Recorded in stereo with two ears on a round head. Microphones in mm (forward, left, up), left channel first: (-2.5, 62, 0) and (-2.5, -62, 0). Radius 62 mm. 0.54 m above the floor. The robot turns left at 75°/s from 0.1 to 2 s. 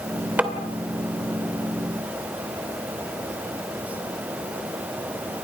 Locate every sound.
0.4 s tapping: 10° right (ahead or behind), 2 m; by 0.5 s centre (ahead or behind), 2 m